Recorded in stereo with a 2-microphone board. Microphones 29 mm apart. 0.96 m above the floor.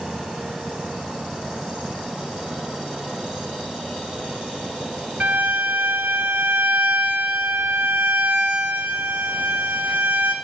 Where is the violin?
70° right (ahead or behind), 3 m.